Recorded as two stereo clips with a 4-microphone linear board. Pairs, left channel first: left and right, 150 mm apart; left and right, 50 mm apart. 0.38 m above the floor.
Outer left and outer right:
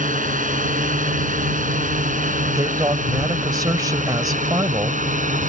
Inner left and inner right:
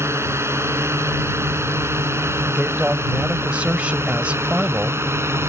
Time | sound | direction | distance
0.0 | a drone | 60° right (ahead or behind) | ?
2.5 | a man speaking | 25° right (ahead or behind) | ?